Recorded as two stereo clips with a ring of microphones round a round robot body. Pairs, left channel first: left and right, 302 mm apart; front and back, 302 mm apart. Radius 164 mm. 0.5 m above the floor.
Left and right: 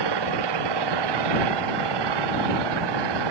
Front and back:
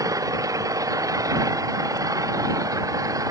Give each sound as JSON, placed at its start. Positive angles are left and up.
{"t": 0.0, "sound": "an engine running", "azimuth_deg": -100}